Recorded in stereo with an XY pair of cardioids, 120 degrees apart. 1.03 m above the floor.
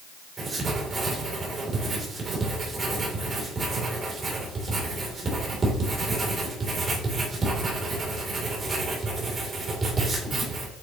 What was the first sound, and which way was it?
Writing, 30° right.